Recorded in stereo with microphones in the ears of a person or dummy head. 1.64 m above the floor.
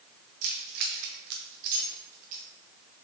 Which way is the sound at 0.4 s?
40° right (ahead or behind).